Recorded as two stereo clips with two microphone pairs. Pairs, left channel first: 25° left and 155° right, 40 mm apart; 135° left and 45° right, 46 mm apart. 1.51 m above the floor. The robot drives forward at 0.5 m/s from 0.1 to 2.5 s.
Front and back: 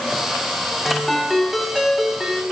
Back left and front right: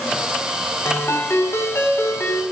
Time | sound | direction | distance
0.8 | a ringtone | 115° left | 5.5 m